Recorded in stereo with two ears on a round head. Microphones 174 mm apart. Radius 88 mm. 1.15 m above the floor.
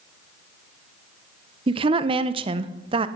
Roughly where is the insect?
No insect in this recording.